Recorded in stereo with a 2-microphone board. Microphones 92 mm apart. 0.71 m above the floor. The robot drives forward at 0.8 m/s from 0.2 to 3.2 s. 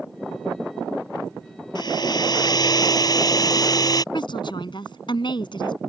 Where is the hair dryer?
50° left (ahead or behind); by 4.0 s 45° left (ahead or behind).